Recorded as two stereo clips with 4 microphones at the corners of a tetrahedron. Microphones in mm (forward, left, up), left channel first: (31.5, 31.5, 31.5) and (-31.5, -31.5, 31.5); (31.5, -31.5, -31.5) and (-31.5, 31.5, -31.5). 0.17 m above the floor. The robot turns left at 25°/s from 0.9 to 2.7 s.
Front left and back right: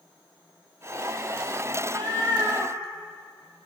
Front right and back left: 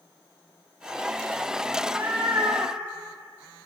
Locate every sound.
1.8 s a cat meowing: 150° right, 2.0 m; by 3.7 s 175° right, 2.0 m